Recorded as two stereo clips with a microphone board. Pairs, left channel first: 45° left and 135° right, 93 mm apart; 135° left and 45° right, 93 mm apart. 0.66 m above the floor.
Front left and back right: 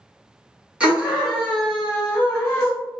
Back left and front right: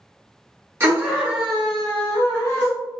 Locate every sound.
0.8 s a scream: 75° right, 1.2 m; by 2.7 s 105° left, 1.3 m